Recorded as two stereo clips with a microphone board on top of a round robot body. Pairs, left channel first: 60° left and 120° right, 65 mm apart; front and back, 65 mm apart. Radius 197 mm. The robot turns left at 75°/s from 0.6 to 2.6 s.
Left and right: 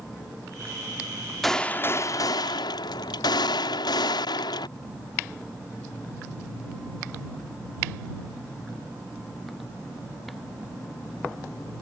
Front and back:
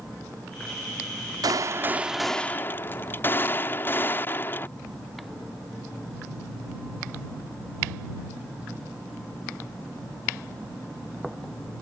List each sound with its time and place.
1.4 s a gunshot: 145° left; by 4.7 s 60° left